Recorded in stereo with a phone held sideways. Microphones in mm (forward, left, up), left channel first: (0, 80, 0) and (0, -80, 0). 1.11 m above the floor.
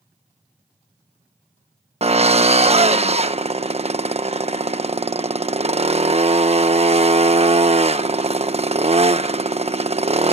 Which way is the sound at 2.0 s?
40° right (ahead or behind).